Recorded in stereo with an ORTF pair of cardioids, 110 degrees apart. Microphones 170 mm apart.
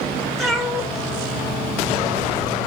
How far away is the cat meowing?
About 2.5 m.